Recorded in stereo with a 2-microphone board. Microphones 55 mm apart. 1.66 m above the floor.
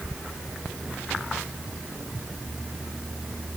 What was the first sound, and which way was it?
Only background noise.